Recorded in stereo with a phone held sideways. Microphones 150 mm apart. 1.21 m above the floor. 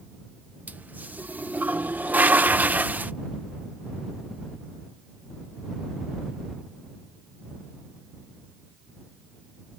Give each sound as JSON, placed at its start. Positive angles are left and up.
{"t": 0.7, "sound": "a toilet flushing", "side_deg": -10}